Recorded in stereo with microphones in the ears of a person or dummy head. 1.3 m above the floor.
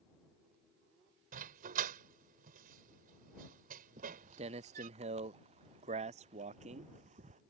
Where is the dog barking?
50° right (ahead or behind).